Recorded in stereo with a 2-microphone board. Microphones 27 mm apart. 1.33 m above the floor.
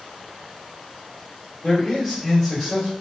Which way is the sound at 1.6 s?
15° left (ahead or behind).